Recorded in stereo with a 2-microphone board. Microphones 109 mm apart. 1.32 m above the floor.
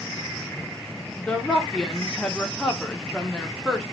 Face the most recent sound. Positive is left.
turn(degrees=10)  # may be behind; listen again after turning